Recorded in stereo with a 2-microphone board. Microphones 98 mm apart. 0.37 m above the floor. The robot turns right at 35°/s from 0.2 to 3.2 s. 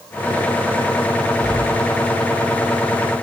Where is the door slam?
35° right (ahead or behind), 8 m; by 2.5 s 75° right (ahead or behind), 8 m.